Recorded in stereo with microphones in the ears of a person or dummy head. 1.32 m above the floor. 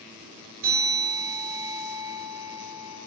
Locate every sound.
0.6 s a bell: 65° right (ahead or behind), 3.5 m